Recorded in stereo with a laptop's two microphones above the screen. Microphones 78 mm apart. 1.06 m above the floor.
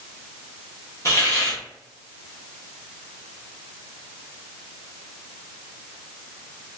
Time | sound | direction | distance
1.1 | a hiss | 40° left (ahead or behind) | 0.8 m